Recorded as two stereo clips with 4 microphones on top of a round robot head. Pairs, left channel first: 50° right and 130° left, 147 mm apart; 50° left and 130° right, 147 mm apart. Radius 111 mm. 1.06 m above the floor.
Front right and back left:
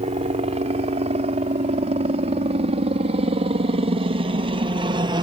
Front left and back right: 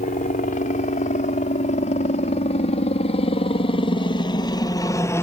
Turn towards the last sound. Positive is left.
turn(degrees=110)